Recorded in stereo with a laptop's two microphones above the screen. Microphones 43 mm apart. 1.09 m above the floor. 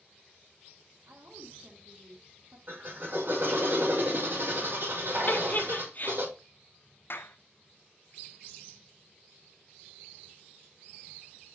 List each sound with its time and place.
1.1 s a woman speaking: 80° right, 1.6 m
2.7 s a drill: 50° right (ahead or behind), 2 m
5.3 s a giggle: 45° left (ahead or behind), 0.6 m
7.1 s a clap: 60° left (ahead or behind), 0.6 m